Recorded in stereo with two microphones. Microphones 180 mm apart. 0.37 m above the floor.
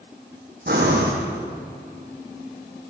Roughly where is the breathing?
Right.